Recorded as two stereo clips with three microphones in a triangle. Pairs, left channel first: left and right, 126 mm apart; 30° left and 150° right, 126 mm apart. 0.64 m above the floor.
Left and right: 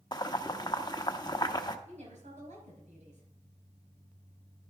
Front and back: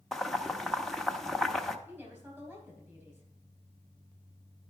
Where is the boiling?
115° left, 0.7 m.